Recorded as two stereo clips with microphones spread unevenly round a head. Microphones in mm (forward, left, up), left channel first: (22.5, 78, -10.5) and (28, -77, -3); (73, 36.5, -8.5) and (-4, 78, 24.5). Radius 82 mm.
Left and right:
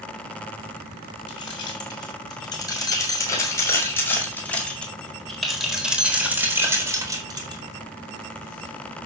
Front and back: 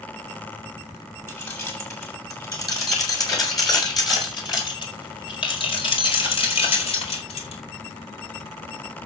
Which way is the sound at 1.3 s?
30° left.